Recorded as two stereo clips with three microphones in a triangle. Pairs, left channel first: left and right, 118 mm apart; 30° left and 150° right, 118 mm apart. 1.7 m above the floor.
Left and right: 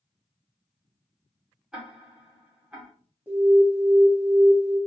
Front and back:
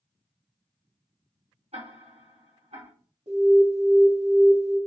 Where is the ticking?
175° right, 1.5 m.